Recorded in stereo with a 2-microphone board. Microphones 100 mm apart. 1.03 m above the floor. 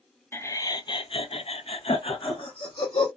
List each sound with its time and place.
0.3 s laughter: 25° left (ahead or behind), 0.7 m; by 3.1 s 55° left (ahead or behind), 1.3 m